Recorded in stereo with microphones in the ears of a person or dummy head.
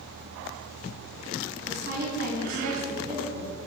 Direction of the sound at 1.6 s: 45° right (ahead or behind).